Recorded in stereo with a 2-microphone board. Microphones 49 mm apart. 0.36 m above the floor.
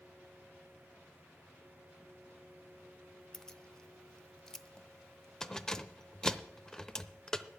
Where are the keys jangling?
15° left (ahead or behind), 0.6 m.